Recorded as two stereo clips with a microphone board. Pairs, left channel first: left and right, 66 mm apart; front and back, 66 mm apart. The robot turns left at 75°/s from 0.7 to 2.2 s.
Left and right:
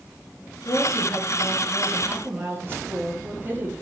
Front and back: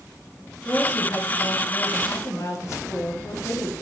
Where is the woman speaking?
75° left, 4 m; by 3.7 s 35° right, 4 m.